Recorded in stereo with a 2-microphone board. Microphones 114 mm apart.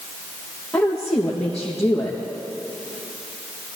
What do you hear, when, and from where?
0.7 s a woman speaking: 5° left (ahead or behind), 3 m